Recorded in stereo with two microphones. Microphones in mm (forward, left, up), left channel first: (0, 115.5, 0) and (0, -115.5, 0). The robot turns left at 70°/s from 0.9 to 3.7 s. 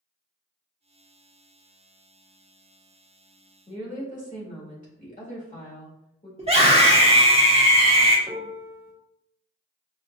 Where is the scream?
25° right (ahead or behind), 1.4 m.